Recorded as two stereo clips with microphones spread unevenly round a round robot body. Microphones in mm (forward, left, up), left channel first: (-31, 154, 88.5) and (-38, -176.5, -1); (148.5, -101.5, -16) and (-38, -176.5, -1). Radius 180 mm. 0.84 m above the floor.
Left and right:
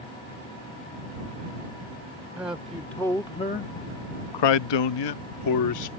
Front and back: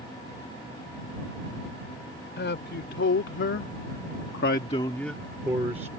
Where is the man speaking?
5° right; by 5.9 s 130° left.